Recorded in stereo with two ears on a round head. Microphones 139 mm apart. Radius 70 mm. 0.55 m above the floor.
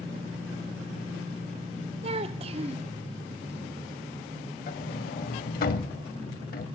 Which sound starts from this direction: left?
A sliding door, at 4.7 s.